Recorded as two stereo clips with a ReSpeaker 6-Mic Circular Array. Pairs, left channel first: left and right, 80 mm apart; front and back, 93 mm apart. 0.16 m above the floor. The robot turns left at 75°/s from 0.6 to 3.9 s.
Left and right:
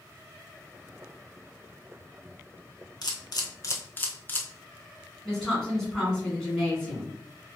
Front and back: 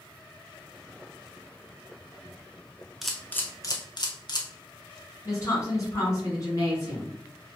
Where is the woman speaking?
10° left, 1.5 m.